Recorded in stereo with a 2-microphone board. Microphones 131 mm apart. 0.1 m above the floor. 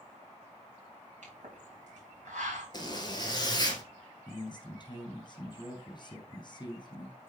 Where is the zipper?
35° left (ahead or behind), 1.5 m.